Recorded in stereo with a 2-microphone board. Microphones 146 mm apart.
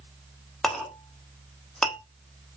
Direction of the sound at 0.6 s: 5° left (ahead or behind).